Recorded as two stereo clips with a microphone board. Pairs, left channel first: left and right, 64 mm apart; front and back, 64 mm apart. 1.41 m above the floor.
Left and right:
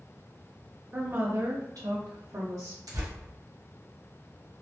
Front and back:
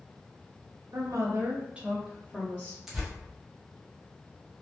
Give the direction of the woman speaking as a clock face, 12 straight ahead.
5 o'clock.